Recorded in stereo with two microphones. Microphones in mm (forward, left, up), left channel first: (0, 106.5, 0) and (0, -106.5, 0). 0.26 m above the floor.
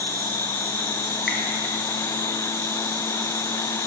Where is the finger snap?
55° left (ahead or behind), 1.8 m.